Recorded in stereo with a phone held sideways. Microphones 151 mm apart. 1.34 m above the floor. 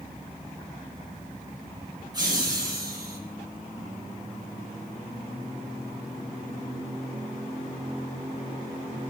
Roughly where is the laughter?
Right.